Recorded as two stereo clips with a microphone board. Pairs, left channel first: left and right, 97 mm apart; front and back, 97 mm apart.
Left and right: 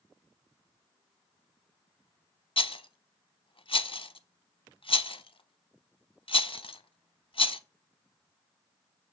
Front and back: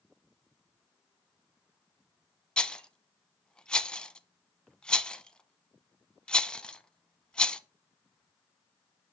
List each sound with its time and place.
2.6 s a rattle: 80° left, 0.5 m